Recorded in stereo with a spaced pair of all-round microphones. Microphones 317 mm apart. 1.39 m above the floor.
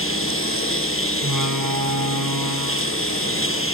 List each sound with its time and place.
0.0 s a lawn mower: 40° left (ahead or behind)
1.2 s a door slam: 85° right